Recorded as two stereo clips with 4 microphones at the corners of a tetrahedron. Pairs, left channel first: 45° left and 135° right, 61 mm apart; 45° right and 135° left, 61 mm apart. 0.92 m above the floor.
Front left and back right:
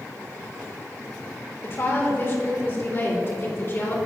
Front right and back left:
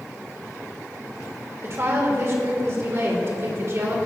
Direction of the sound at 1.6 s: 95° left.